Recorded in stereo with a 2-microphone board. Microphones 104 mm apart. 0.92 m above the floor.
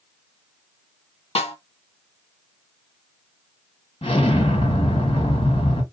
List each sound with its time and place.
1.4 s a snare drum: 70° left (ahead or behind), 1.6 m
4.0 s an explosion: 65° left (ahead or behind), 1.7 m